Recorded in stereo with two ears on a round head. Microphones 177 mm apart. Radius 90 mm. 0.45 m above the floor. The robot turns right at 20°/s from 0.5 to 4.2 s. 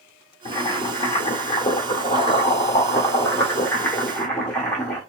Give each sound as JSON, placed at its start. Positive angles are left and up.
{"t": 0.5, "sound": "boiling", "side_deg": 30, "distance_m": 1.3}